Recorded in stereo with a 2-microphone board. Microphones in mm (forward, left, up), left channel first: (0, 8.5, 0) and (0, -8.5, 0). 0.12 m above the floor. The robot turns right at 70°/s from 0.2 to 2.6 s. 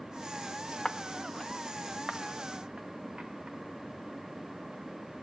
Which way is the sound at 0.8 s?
50° left (ahead or behind).